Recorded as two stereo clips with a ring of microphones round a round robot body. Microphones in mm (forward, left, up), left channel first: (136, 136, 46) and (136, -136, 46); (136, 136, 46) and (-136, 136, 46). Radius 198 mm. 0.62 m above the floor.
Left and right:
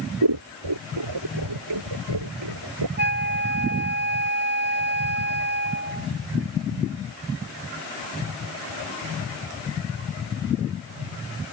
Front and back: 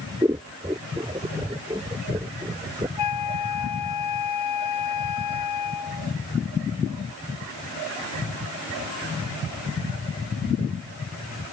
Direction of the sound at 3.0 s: 40° right.